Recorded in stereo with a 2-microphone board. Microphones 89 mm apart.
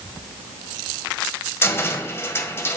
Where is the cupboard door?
25° left (ahead or behind), 1.7 m.